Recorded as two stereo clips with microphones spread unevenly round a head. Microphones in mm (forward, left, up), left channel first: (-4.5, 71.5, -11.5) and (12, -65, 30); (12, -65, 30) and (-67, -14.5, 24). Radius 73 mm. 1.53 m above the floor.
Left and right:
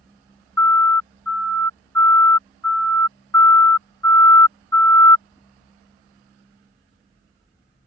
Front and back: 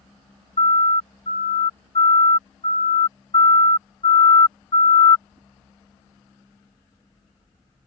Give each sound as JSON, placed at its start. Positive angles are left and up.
{"t": 0.6, "sound": "a siren", "azimuth_deg": 20}